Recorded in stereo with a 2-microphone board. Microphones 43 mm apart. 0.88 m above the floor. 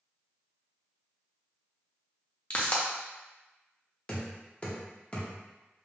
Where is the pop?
30° left (ahead or behind), 0.6 m.